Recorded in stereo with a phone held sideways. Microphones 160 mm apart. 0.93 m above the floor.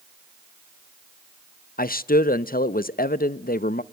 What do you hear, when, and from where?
1.8 s a man speaking: 65° left (ahead or behind), 0.5 m